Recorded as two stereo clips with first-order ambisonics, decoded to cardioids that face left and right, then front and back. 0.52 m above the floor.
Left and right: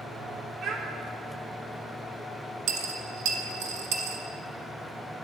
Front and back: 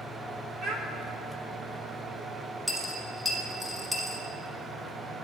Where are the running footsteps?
I don't hear running footsteps.